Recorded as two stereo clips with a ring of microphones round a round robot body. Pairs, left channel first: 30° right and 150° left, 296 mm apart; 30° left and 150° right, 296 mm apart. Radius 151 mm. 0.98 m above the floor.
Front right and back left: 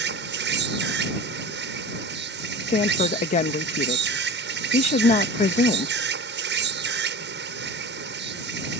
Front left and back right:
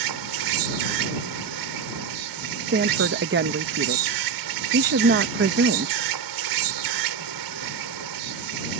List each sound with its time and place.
0.0 s an insect: 155° right
2.7 s a woman speaking: 95° right